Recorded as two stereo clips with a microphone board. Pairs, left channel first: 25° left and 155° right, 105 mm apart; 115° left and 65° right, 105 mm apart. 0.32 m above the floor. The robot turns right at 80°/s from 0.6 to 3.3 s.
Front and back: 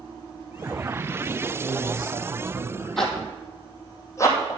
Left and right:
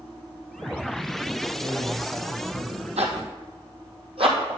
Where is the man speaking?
170° left, 1.9 m; by 2.9 s 90° right, 1.9 m.